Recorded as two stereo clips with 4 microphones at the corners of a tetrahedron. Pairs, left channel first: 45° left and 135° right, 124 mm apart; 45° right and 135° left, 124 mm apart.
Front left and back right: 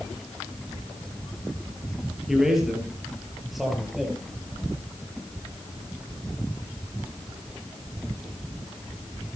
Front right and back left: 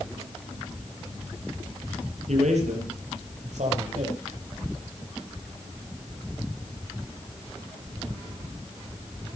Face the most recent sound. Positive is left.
turn(degrees=135)